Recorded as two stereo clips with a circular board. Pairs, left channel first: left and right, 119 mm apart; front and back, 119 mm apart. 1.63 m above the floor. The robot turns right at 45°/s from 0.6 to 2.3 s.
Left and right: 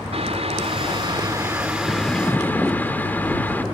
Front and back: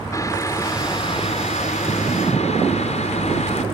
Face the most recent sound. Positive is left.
turn(degrees=15)